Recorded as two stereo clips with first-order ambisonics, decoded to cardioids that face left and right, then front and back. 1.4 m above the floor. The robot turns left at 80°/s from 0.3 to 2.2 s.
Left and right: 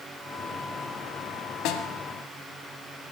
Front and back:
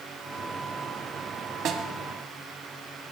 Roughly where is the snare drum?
Behind left.